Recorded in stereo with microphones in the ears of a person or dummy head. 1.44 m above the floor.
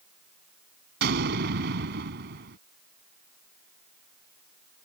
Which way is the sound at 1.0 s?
65° right (ahead or behind).